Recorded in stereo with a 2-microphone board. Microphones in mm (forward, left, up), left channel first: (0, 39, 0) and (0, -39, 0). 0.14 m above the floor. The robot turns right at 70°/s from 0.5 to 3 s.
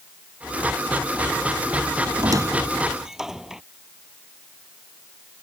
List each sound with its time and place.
2.2 s a squeak: 60° right (ahead or behind); by 3.6 s 10° right (ahead or behind)